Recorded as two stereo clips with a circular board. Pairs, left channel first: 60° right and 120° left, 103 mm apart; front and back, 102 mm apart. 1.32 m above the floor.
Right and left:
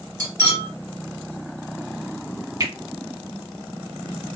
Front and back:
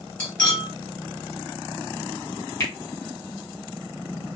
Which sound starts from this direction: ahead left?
A finger snap, at 2.6 s.